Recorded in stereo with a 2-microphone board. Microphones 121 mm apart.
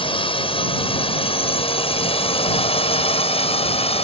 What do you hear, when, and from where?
0.0 s a drone: 50° left (ahead or behind); by 4.0 s 55° left (ahead or behind)